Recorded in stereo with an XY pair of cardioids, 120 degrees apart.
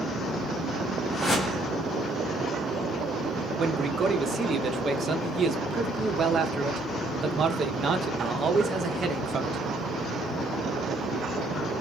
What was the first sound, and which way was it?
A whoosh, 25° left.